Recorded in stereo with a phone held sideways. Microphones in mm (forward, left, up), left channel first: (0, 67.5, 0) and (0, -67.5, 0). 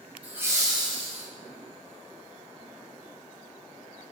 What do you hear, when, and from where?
0.2 s laughter: 10° right (ahead or behind), 0.9 m; by 1.3 s 55° right (ahead or behind), 0.7 m